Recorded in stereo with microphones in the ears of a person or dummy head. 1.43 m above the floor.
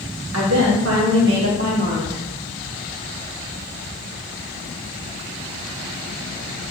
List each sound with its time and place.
0.3 s a woman speaking: 80° right, 1.2 m; by 2.2 s 25° right (ahead or behind), 1.0 m